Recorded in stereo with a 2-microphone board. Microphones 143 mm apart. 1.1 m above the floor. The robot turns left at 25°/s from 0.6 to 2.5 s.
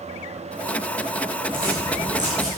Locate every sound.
1.5 s footsteps: 70° right (ahead or behind), 5.5 m; by 2.5 s 50° right (ahead or behind), 5.5 m